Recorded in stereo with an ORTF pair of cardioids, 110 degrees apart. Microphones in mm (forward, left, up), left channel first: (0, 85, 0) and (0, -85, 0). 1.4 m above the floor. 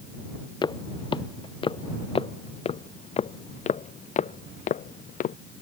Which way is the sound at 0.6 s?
25° left.